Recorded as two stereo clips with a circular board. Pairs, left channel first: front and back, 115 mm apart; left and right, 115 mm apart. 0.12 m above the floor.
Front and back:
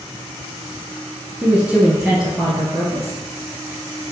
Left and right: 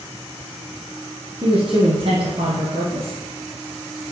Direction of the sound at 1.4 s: 105° right.